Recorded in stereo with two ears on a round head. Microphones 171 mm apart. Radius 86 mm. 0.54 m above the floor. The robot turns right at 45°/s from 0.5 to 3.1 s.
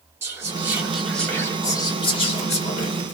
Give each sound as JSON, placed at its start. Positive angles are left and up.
{"t": 0.2, "sound": "whispering", "azimuth_deg": -25, "distance_m": 1.4}